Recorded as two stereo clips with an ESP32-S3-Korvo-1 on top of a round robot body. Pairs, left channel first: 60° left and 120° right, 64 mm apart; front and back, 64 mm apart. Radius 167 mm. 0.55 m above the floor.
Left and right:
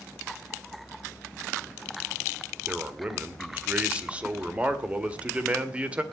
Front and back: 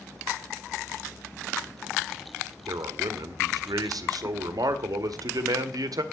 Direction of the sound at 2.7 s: 170° left.